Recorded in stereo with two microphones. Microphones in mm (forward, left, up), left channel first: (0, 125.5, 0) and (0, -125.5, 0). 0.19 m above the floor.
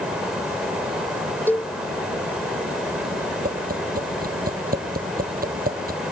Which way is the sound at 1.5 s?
10° left (ahead or behind).